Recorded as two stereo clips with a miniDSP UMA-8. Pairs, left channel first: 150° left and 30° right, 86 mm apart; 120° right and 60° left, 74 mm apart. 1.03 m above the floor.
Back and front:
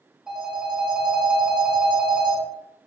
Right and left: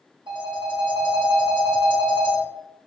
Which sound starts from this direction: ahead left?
A phone ringing, at 0.3 s.